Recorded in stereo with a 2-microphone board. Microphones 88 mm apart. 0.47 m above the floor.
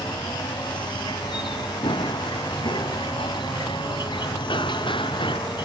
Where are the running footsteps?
70° left (ahead or behind); by 5.4 s 85° left.